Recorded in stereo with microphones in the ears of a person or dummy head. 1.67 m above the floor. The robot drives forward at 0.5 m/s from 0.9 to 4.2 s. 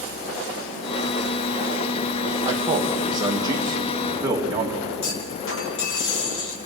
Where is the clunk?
75° left (ahead or behind), 2.5 m.